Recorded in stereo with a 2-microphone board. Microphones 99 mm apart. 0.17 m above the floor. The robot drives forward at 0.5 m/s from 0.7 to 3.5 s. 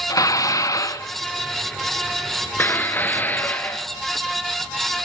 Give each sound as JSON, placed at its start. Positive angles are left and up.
{"t": 0.1, "sound": "dishes clattering", "side_deg": 40, "distance_m": 1.0}